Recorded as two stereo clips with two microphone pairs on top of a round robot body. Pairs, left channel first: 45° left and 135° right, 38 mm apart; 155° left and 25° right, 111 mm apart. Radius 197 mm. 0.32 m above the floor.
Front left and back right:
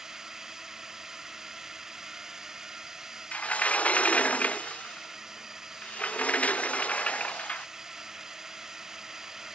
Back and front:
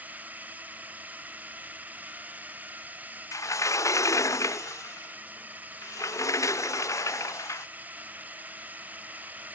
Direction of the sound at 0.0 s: 80° right.